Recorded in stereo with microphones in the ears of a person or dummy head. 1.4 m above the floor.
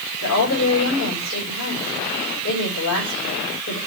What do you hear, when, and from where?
0.2 s a woman speaking: 85° left, 5 m